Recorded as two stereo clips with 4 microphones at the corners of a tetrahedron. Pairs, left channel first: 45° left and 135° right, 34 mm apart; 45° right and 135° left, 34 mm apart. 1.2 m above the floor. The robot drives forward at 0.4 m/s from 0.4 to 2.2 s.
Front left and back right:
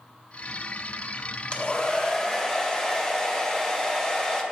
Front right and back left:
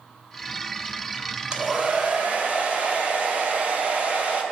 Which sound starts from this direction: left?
A hair dryer, at 1.5 s.